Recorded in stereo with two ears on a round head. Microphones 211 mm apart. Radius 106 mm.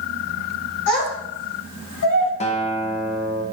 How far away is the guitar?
About 0.7 m.